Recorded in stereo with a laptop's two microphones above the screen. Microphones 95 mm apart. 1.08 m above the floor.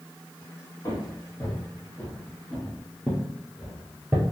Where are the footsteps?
35° left (ahead or behind), 1.9 m; by 4.2 s 20° right (ahead or behind), 1.1 m.